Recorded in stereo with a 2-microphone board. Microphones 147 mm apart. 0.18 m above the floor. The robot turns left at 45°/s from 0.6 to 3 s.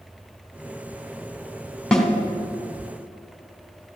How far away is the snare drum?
About 1.7 m.